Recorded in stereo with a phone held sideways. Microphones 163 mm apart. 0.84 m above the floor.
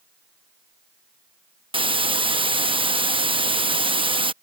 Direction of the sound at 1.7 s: 30° right (ahead or behind).